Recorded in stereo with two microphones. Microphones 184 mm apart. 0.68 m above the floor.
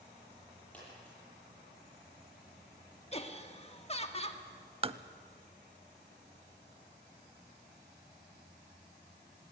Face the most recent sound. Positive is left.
turn(degrees=-30)  # may be behind; listen again after turning